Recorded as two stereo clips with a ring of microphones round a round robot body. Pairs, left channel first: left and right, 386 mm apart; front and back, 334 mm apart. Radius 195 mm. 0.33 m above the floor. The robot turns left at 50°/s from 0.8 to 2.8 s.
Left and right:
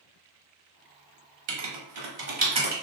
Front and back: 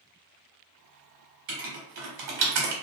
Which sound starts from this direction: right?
Writing, at 1.5 s.